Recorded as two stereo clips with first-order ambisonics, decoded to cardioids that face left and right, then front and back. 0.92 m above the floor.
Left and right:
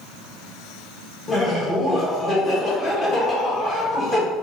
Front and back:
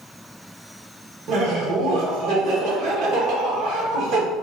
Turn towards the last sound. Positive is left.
turn(degrees=150)